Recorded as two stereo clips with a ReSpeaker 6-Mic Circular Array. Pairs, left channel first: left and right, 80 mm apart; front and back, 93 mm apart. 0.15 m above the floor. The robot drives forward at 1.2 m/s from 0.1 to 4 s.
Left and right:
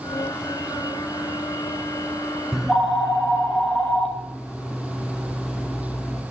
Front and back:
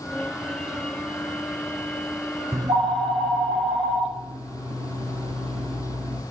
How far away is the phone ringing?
About 0.8 m.